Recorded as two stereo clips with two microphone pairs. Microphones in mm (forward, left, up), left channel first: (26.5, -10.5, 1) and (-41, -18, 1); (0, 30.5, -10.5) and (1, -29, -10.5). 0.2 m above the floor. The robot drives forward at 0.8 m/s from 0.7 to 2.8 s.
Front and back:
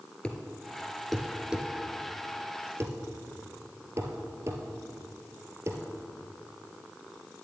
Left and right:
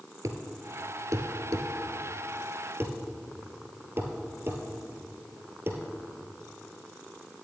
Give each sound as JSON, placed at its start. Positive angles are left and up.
{"t": 0.2, "sound": "a thud", "azimuth_deg": -70, "distance_m": 1.4}